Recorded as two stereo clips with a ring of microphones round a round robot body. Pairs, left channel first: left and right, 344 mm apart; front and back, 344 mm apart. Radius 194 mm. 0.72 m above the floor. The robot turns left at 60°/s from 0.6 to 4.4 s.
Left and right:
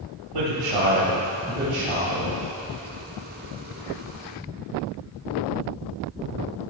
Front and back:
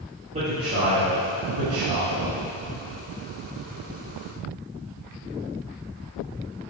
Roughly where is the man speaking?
Right.